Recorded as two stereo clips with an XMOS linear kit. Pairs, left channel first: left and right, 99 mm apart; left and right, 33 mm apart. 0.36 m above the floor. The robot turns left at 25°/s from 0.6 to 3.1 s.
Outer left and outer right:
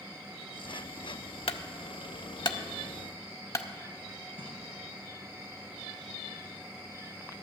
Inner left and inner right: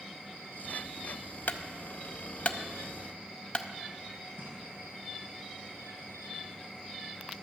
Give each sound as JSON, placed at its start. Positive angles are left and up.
{"t": 1.5, "sound": "a clunk", "side_deg": 70, "distance_m": 0.5}
{"t": 4.4, "sound": "a splash", "side_deg": -65, "distance_m": 3.0}